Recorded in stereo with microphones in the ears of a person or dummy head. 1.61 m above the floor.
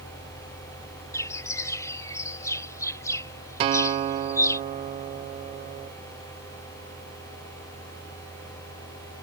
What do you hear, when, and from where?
1.1 s a bird: 20° left (ahead or behind)
3.6 s a guitar: 25° right (ahead or behind)